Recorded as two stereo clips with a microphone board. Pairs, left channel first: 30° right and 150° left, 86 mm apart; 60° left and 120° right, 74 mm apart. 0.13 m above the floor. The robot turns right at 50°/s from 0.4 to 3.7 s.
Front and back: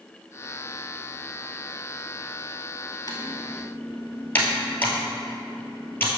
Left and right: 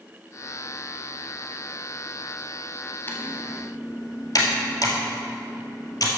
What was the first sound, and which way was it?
Typing on a keyboard, 5° left.